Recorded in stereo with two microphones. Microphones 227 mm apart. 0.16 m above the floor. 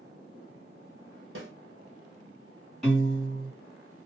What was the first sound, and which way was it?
A snare drum, 60° right (ahead or behind).